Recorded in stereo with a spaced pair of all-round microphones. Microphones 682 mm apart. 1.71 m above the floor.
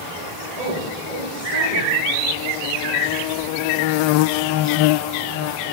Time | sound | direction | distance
0.6 | a woman speaking | 85° right | 8.5 m